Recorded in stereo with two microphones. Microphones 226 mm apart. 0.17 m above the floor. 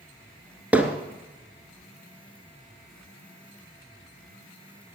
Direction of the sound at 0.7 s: 5° right (ahead or behind).